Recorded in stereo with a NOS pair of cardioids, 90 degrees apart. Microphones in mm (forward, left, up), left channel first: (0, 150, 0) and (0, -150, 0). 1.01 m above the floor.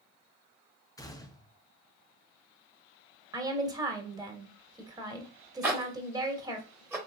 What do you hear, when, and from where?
1.0 s a gunshot: 10° left, 0.7 m
3.3 s a woman speaking: 15° right, 1.2 m
5.6 s a zipper: 10° right, 1.1 m